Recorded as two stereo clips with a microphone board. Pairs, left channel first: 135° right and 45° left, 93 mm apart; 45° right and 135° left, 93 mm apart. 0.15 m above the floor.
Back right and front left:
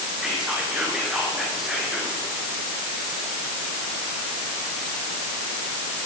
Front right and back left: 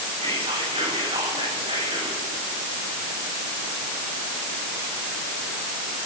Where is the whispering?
130° left, 7.5 m.